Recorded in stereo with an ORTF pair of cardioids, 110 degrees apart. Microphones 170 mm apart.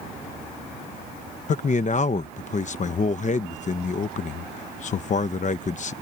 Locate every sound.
1.5 s a man speaking: 45° left